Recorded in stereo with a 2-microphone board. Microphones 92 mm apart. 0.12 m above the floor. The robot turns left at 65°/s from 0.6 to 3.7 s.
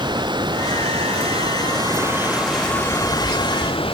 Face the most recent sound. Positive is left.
turn(degrees=105)